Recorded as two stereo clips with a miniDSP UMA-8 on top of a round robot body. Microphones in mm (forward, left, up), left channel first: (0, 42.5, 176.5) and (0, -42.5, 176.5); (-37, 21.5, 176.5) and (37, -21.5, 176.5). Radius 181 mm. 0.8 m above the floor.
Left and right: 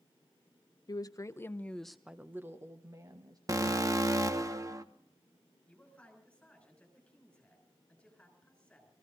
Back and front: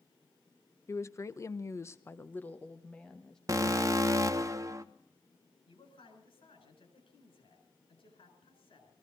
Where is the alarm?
60° right, 1.2 m.